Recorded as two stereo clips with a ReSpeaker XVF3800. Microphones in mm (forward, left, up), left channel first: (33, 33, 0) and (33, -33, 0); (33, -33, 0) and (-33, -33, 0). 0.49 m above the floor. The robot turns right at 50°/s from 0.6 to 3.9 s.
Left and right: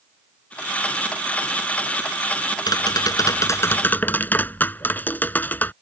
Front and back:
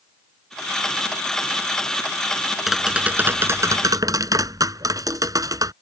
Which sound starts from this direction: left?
Tapping, at 2.7 s.